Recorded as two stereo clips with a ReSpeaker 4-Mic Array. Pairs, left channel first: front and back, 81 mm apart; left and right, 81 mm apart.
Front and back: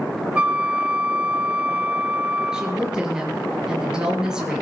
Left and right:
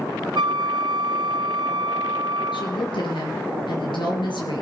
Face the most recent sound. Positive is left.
turn(degrees=100)